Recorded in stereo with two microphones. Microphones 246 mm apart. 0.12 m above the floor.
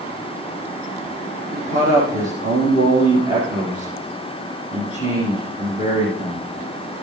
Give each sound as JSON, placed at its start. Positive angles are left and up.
{"t": 1.5, "sound": "a man speaking", "side_deg": -30, "distance_m": 5.5}